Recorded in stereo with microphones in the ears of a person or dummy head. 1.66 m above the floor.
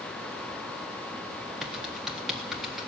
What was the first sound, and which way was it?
Typing on a keyboard, centre (ahead or behind).